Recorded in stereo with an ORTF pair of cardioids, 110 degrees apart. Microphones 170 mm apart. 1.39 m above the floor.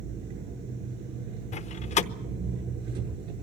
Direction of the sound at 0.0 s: 70° right.